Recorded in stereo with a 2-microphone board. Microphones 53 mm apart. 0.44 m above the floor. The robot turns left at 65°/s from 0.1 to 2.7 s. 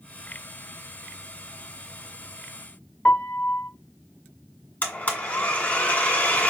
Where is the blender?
30° left (ahead or behind), 1.6 m.